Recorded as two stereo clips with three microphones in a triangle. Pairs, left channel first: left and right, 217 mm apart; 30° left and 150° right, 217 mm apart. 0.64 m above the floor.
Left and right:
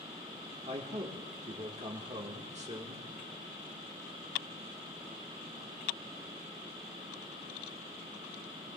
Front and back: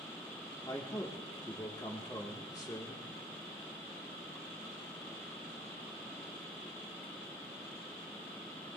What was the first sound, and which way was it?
A man speaking, 40° right.